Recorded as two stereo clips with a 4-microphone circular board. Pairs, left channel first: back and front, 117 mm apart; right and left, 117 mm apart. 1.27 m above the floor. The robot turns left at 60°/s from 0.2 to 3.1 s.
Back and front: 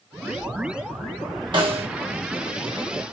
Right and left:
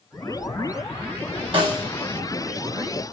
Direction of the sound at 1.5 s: 50° left.